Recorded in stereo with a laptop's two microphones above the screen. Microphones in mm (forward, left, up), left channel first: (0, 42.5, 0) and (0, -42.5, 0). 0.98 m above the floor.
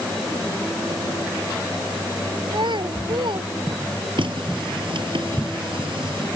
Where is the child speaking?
65° right (ahead or behind).